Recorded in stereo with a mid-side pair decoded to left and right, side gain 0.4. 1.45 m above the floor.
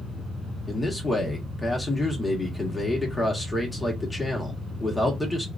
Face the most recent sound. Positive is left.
turn(degrees=15)